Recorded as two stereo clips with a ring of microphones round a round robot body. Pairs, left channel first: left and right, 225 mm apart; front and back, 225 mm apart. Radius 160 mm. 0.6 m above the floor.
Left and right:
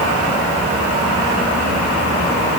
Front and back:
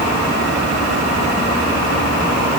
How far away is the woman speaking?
I don't hear a woman speaking.